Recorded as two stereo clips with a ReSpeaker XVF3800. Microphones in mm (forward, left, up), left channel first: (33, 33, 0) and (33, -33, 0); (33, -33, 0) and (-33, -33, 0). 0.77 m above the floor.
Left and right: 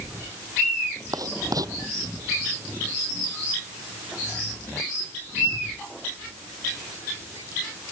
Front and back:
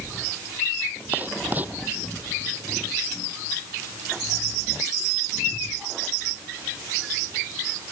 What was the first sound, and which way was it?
Writing, 115° right.